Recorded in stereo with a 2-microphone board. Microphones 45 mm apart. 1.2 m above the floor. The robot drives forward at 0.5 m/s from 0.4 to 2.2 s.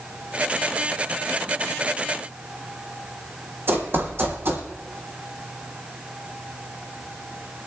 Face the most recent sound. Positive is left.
turn(degrees=-60)  # may be behind; listen again after turning